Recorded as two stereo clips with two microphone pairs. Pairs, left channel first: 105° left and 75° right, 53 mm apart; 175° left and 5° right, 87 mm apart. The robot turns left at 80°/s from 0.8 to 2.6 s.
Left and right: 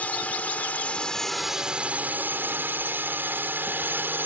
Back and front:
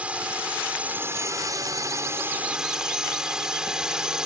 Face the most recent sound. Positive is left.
turn(degrees=-80)